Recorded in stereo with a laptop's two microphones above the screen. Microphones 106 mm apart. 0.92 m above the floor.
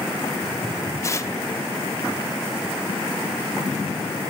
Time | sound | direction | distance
1.0 | tearing paper | 25° left (ahead or behind) | 0.7 m